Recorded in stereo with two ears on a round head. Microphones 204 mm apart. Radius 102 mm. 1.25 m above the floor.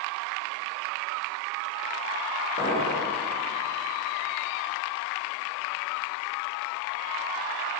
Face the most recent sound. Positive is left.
turn(degrees=50)  # may be behind; listen again after turning